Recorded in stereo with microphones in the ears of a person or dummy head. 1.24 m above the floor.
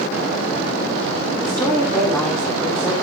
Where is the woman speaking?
15° left (ahead or behind), 8 m; by 2.9 s 10° left (ahead or behind), 7 m.